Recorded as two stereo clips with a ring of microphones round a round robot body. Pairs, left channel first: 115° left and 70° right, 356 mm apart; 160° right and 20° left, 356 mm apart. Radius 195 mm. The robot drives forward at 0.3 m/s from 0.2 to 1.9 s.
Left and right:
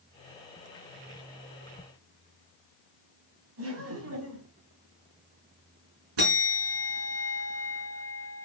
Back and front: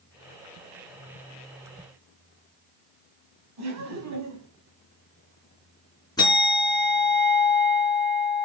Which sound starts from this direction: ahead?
Laughter, at 3.6 s.